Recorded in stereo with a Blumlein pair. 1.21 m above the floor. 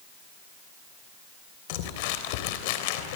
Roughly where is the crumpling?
Ahead left.